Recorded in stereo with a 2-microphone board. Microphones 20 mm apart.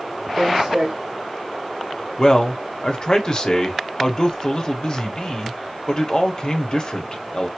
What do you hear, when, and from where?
0.4 s footsteps: 45° right (ahead or behind), 2.5 m
2.2 s a man speaking: 40° left (ahead or behind), 1.1 m